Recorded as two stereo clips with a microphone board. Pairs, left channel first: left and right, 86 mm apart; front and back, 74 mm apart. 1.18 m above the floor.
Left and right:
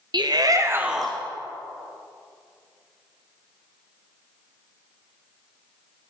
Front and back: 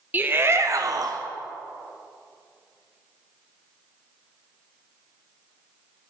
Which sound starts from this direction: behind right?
A shout, at 0.1 s.